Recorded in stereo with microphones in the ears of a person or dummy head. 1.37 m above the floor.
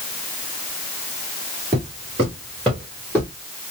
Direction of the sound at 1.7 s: 25° right (ahead or behind).